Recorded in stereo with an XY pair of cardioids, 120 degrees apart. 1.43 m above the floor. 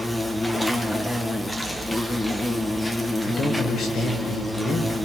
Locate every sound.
0.0 s an insect: 5° left, 1.8 m
3.2 s a man speaking: 50° left, 4.5 m